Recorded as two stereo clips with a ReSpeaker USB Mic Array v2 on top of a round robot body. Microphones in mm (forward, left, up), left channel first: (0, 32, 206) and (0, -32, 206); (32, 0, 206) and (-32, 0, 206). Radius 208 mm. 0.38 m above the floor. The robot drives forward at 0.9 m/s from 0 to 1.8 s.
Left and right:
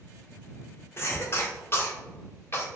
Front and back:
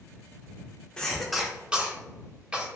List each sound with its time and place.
1.0 s a cough: 70° left, 1.5 m; by 2.7 s 120° left, 1.5 m